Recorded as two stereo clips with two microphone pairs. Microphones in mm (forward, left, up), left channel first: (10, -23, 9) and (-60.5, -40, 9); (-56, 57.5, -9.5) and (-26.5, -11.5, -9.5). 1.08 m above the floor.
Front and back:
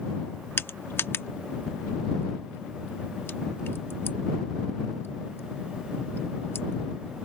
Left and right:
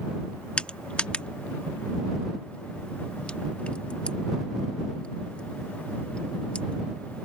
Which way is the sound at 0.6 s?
50° left.